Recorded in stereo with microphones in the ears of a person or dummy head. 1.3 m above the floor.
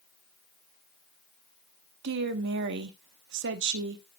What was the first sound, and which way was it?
A woman speaking, 65° right (ahead or behind).